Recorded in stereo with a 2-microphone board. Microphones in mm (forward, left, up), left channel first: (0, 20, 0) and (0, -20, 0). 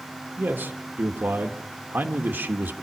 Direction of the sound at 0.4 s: 65° right (ahead or behind).